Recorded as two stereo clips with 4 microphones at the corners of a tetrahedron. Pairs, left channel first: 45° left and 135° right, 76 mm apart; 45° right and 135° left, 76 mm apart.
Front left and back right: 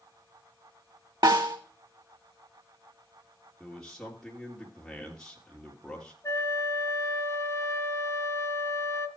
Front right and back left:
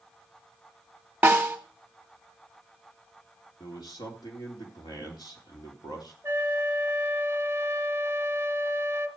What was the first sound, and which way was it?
A snare drum, 155° right.